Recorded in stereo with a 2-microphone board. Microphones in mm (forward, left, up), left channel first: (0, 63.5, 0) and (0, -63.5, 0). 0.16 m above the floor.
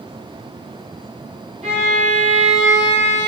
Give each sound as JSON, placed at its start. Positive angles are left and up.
{"t": 1.6, "sound": "a violin", "side_deg": -60, "distance_m": 1.5}